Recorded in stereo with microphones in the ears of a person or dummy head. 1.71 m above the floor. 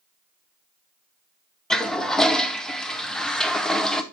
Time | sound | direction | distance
1.7 | a toilet flushing | centre (ahead or behind) | 0.7 m